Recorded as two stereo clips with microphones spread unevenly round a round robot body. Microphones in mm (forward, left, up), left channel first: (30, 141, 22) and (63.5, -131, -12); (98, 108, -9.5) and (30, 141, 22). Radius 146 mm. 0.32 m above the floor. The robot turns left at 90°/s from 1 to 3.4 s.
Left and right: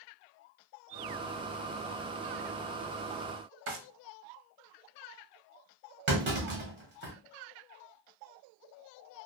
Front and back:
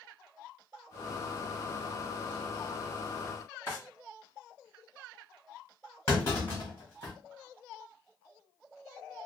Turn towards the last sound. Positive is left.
turn(degrees=-50)